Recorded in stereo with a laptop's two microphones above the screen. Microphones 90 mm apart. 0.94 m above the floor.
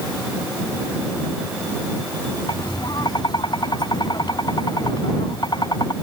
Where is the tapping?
55° left (ahead or behind).